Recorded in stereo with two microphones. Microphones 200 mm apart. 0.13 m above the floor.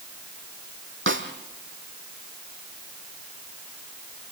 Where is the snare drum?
80° right, 2 m.